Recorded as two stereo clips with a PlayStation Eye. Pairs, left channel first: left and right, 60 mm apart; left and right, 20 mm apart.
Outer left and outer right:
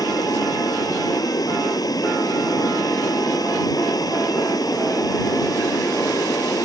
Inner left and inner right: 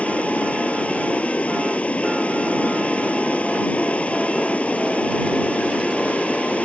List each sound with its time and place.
0.0 s running water: 85° left